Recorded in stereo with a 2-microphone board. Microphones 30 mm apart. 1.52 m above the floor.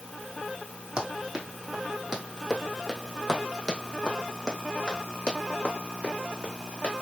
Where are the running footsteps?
25° right (ahead or behind), 2.5 m; by 7.0 s 50° left (ahead or behind), 3.5 m.